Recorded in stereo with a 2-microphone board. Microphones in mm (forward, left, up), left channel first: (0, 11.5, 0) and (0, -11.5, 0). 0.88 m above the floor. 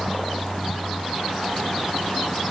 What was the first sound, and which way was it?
Only background noise.